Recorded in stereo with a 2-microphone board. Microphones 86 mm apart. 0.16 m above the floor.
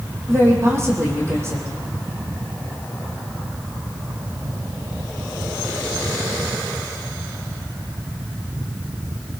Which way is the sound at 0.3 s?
35° right (ahead or behind).